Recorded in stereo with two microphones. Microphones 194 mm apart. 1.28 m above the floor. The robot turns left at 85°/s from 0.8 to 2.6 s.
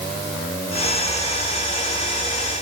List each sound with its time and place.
Only background noise.